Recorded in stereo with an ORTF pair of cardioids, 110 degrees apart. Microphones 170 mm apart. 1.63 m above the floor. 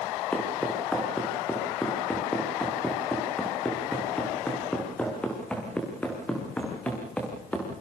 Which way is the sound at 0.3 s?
5° left.